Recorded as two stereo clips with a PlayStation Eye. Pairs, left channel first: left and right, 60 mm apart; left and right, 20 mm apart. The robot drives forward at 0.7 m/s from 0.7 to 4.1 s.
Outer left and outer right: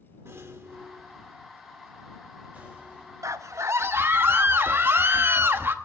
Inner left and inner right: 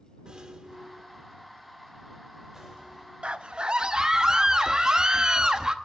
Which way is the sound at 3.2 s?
60° right (ahead or behind).